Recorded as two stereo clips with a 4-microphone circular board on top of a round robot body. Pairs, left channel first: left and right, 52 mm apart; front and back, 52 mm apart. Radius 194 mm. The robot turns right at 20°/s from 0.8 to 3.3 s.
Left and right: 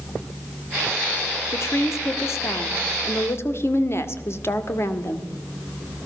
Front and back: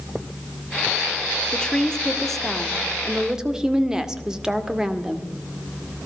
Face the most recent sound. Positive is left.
turn(degrees=105)